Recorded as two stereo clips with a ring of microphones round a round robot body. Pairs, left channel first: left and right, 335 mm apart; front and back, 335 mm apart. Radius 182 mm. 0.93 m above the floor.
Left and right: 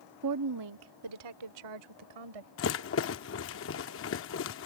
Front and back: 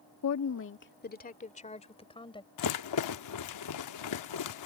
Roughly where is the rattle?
Ahead left.